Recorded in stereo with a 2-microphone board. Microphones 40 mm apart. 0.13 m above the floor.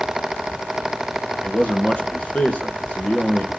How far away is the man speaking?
About 1.9 m.